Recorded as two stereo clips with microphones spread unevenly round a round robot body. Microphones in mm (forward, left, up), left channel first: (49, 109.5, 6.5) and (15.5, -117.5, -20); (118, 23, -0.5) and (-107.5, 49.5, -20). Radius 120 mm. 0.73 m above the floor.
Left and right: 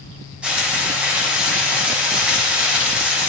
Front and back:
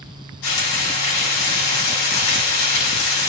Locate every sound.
0.4 s frying: 10° right, 7 m